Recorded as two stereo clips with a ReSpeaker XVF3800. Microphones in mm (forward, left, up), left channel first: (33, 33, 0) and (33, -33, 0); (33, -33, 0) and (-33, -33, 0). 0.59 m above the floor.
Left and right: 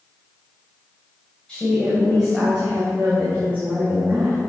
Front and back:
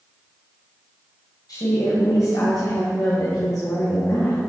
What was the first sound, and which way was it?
A woman speaking, 10° left.